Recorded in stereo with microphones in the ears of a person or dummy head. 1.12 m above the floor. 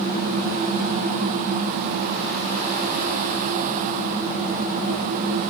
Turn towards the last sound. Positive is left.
No sound to turn to.